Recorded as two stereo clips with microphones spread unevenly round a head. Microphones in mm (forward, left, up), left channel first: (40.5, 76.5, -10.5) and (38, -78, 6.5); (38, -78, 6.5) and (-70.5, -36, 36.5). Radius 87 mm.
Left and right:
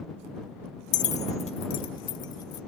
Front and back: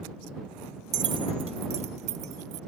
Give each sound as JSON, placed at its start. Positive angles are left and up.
{"t": 0.9, "sound": "keys jangling", "azimuth_deg": 120}